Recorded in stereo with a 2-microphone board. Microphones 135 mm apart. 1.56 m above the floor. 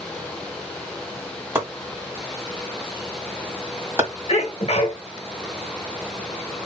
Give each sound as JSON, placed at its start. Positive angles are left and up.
{"t": 1.6, "sound": "chopping", "side_deg": -20, "distance_m": 2.0}
{"t": 4.3, "sound": "a sneeze", "side_deg": 50, "distance_m": 1.2}